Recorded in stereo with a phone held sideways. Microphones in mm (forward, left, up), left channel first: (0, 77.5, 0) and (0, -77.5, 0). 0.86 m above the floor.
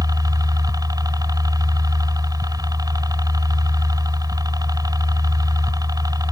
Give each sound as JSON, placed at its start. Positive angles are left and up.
{"t": 0.0, "sound": "a helicopter", "side_deg": -25}